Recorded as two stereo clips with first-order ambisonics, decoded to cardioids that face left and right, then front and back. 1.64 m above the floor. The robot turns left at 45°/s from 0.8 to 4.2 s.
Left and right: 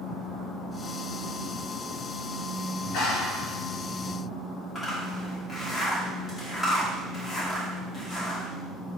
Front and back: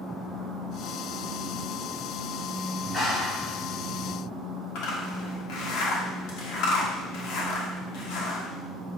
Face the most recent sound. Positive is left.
turn(degrees=10)